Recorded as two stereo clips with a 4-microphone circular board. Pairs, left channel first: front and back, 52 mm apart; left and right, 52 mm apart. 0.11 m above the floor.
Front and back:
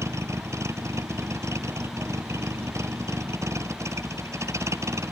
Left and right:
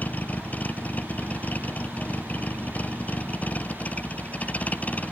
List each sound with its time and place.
0.0 s a vehicle: 150° left; by 5.1 s 155° left